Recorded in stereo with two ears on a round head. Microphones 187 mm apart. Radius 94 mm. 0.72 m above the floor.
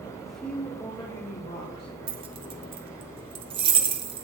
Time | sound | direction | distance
0.2 | a woman speaking | centre (ahead or behind) | 3 m
2.1 | keys jangling | 25° right (ahead or behind) | 1.2 m